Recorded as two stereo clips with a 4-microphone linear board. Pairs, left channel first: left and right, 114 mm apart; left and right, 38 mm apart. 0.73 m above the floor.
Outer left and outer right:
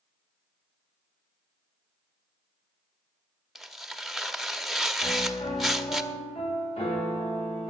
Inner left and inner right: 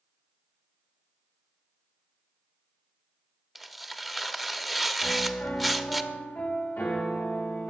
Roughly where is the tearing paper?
Centre.